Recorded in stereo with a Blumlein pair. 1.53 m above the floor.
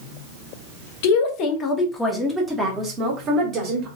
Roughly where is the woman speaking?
Ahead left.